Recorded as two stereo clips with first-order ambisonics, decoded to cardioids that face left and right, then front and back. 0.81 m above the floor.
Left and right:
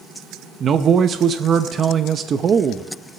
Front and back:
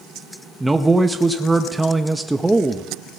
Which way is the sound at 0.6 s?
105° right.